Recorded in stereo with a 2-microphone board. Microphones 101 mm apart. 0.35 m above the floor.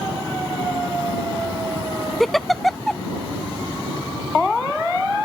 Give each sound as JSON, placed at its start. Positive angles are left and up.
{"t": 2.2, "sound": "a giggle", "side_deg": 0}